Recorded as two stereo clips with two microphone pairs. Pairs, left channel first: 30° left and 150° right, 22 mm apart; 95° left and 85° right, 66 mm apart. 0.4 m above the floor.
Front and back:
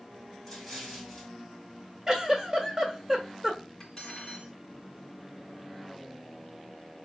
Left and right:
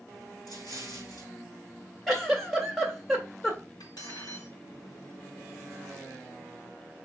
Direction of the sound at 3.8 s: 95° left.